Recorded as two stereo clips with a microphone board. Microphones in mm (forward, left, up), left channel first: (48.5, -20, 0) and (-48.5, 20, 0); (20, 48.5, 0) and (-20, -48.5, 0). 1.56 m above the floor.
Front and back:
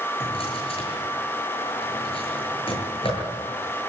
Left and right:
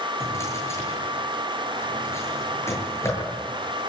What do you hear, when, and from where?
0.2 s a drawer: 5° left, 8.5 m